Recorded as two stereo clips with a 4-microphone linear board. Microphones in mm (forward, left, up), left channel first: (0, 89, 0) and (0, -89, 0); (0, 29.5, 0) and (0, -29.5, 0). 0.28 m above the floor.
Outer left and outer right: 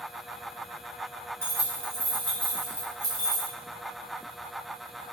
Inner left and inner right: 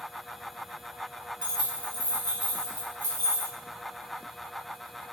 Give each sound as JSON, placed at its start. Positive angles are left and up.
{"t": 1.4, "sound": "keys jangling", "side_deg": -15, "distance_m": 1.5}